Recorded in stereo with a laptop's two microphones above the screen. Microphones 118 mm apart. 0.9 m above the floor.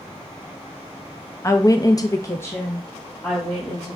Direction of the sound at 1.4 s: 25° left (ahead or behind).